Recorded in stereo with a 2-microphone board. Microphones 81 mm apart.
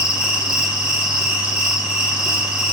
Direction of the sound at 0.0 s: 15° right (ahead or behind).